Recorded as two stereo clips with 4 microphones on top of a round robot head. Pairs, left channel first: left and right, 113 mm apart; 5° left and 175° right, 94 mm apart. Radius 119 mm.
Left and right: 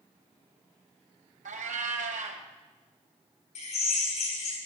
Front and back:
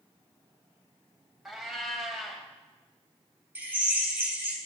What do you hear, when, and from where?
1.4 s a cat meowing: 90° right, 1.5 m
3.5 s a drill: 110° left, 4.5 m